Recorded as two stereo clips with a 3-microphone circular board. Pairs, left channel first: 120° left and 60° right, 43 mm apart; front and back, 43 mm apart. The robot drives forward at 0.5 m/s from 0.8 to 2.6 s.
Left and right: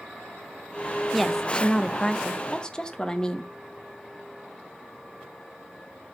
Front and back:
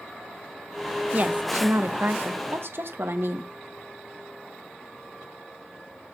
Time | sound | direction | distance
1.1 | a woman speaking | 150° right | 0.6 m